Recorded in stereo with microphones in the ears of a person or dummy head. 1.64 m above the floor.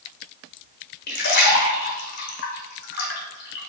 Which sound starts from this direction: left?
A splash, at 1.1 s.